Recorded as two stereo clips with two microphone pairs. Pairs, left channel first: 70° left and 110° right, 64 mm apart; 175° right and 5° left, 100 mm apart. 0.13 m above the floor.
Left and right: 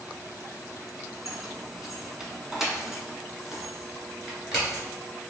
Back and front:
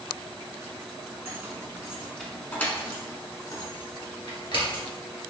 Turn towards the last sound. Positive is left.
turn(degrees=165)